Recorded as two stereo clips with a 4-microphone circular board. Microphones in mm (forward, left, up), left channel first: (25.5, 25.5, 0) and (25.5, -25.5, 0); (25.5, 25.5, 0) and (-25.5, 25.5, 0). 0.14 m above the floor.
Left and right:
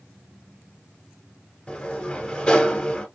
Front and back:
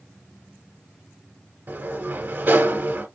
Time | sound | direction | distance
1.7 | a sliding door | 150° left | 1.1 m